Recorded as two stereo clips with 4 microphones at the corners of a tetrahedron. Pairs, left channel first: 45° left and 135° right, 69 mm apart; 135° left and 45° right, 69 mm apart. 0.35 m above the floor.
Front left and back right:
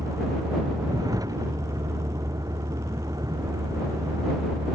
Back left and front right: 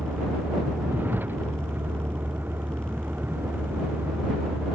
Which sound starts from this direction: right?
A vehicle, at 0.0 s.